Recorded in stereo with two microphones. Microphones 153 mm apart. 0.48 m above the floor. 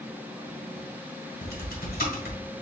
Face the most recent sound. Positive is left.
turn(degrees=75)  # may be behind; listen again after turning